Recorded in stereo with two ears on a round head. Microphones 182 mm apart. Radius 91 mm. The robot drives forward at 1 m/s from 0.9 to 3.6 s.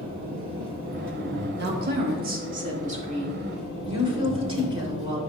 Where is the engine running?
80° right, 1.9 m; by 5.3 s 30° right (ahead or behind), 3.5 m.